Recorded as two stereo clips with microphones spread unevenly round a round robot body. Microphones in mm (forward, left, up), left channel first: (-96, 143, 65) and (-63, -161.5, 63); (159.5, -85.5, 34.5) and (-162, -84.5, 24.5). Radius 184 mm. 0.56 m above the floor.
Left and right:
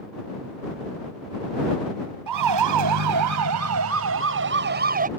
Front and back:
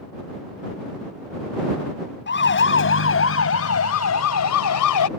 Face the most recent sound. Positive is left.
turn(degrees=-20)